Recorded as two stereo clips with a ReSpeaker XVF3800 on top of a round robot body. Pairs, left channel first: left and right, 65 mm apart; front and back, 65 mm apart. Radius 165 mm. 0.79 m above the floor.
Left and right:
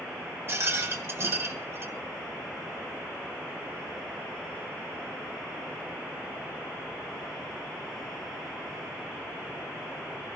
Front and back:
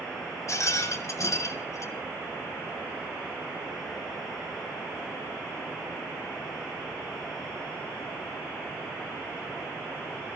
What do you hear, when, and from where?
0.5 s a rattle: 40° right, 2.5 m